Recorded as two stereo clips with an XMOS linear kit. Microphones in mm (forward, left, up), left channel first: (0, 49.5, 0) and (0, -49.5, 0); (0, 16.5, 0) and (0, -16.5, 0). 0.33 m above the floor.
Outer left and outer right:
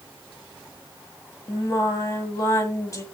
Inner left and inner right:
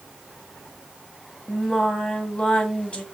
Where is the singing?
35° left (ahead or behind), 1.8 m.